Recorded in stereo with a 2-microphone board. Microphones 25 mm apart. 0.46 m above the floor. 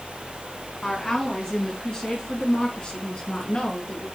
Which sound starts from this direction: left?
A woman speaking, at 0.8 s.